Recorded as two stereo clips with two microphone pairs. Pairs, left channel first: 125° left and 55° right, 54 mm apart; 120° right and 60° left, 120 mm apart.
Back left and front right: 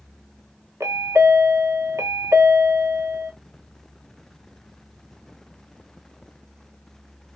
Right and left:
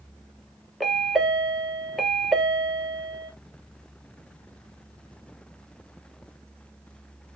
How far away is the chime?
About 0.6 m.